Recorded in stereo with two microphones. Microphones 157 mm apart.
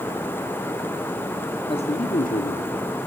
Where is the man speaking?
35° left (ahead or behind), 1.3 m; by 2.8 s 70° left (ahead or behind), 2.5 m.